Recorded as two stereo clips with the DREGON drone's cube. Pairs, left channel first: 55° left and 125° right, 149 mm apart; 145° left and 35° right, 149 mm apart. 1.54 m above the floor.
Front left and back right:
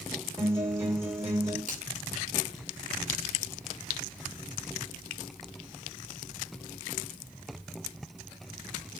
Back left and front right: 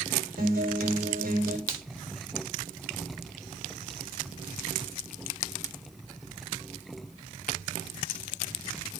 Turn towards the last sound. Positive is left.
turn(degrees=-155)